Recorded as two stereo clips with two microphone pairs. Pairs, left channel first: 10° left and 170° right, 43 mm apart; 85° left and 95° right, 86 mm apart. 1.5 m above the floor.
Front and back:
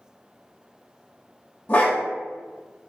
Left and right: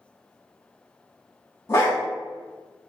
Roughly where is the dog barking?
Ahead left.